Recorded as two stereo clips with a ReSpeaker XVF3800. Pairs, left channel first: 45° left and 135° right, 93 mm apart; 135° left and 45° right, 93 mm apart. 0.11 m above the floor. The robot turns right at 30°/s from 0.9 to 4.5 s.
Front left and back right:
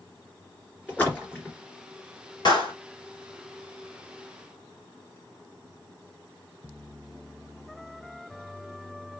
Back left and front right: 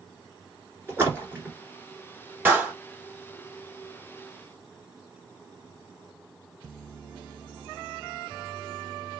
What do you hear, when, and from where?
0.9 s a splash: 15° right, 1.7 m; by 1.6 s 5° left, 1.7 m
2.5 s a clap: 25° left, 1.9 m; by 2.7 s 30° left, 1.9 m